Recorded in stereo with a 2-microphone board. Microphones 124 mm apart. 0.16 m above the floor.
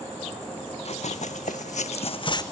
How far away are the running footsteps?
About 0.8 m.